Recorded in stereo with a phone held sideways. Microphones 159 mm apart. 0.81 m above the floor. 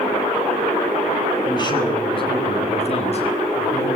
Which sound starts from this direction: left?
A man speaking, at 1.4 s.